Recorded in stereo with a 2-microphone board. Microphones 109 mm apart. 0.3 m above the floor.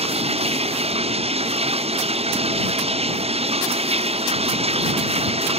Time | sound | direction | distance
0.0 | running water | 70° right (ahead or behind) | ?